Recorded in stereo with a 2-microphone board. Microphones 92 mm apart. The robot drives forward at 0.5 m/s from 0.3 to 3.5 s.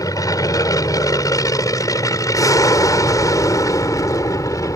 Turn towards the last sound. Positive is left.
turn(degrees=40)  # may be behind; listen again after turning